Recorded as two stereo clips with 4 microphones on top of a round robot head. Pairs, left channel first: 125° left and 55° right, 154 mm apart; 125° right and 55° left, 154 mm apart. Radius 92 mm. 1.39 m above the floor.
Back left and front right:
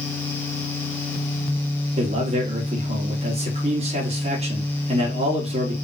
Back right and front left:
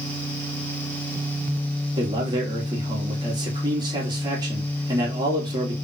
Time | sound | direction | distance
2.0 | a man speaking | 5° right | 2.5 m